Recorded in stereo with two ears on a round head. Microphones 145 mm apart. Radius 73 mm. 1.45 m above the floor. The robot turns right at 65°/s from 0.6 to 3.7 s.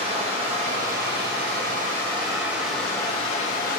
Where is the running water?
135° right, 1.1 m; by 3.8 s 65° left, 1.1 m.